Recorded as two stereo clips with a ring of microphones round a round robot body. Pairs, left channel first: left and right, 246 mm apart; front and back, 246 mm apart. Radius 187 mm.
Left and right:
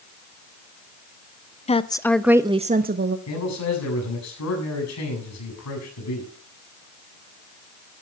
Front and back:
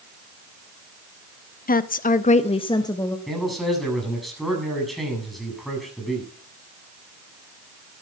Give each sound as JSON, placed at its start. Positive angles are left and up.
{"t": 1.7, "sound": "a woman speaking", "azimuth_deg": 35, "distance_m": 0.9}
{"t": 3.3, "sound": "a man speaking", "azimuth_deg": 90, "distance_m": 7.5}